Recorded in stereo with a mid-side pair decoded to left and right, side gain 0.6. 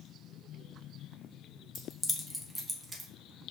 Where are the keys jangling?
30° left, 1.0 m; by 3.1 s 20° right, 1.1 m.